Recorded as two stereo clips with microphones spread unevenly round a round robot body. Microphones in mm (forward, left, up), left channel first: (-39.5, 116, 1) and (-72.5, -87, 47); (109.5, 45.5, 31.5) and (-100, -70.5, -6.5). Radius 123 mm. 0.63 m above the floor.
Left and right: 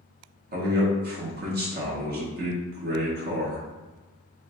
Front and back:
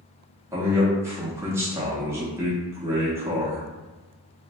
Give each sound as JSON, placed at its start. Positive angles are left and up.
{"t": 0.5, "sound": "a man speaking", "azimuth_deg": -100, "distance_m": 0.7}